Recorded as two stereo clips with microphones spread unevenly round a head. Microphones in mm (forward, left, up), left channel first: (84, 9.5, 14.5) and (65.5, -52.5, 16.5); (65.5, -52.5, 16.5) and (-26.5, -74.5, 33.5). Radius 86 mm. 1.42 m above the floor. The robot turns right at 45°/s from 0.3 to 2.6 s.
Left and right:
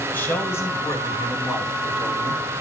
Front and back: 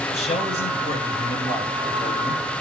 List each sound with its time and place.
0.1 s a man speaking: 15° left, 6 m; by 2.4 s 110° left, 6 m